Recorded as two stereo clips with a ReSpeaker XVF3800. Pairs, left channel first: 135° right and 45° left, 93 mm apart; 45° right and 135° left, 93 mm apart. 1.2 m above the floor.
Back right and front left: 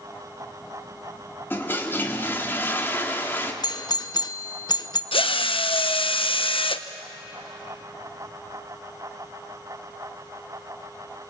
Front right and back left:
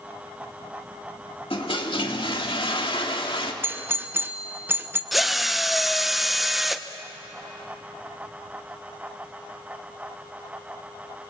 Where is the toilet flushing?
65° right, 2 m.